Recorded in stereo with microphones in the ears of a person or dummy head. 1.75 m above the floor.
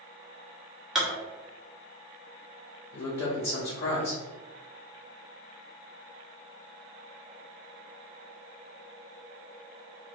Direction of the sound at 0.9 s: Centre (ahead or behind).